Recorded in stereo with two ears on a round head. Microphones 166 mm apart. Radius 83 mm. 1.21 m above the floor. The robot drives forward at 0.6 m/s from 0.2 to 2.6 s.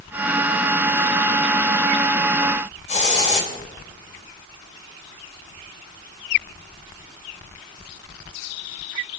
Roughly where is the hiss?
Left.